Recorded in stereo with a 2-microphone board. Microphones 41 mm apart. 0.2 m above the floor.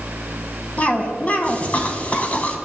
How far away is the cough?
About 1.4 m.